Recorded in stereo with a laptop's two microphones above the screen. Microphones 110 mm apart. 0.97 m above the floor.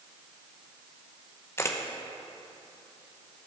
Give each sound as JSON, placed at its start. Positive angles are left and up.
{"t": 1.6, "sound": "a camera shutter", "side_deg": 25, "distance_m": 0.7}